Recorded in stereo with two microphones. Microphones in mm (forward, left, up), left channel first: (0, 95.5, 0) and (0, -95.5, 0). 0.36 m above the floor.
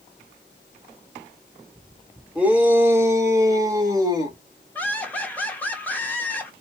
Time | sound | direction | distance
2.4 | a shout | 5° right (ahead or behind) | 0.9 m
4.8 | laughter | 10° left (ahead or behind) | 1.0 m